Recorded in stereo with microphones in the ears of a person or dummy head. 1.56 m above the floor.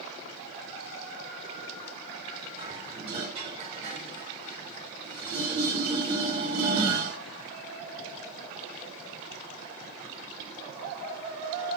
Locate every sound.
2.6 s dishes clattering: 35° right (ahead or behind), 1.2 m